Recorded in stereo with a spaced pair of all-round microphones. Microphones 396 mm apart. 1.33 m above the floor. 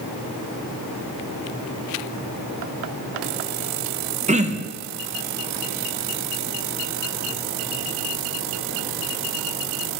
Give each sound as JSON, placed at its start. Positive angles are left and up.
{"t": 4.3, "sound": "throat clearing", "side_deg": -20, "distance_m": 0.6}